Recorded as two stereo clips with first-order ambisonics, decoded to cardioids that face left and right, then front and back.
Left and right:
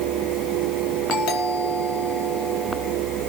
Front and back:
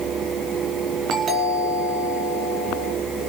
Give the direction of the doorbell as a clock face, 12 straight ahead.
8 o'clock.